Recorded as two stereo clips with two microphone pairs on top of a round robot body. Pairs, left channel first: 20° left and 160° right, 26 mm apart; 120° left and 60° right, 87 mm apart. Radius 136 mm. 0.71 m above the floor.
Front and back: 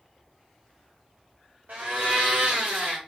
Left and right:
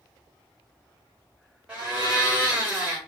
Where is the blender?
135° right, 0.7 m.